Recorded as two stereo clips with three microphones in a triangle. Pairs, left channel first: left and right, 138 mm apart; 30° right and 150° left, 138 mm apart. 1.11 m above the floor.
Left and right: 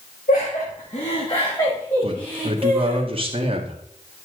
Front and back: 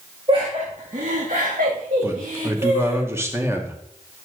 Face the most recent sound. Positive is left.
turn(degrees=-135)